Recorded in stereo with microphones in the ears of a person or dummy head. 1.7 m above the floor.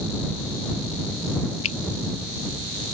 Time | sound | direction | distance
1.6 | a finger snap | 35° left (ahead or behind) | ?